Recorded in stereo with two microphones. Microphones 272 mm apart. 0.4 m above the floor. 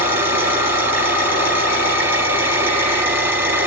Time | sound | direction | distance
0.0 | an engine running | 5° right (ahead or behind) | 8.5 m